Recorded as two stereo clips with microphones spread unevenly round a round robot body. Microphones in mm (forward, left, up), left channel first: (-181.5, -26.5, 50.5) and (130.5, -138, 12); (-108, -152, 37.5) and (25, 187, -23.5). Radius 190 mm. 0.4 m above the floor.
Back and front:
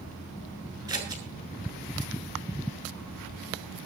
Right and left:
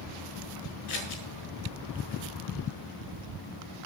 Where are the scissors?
95° right, 7.5 m.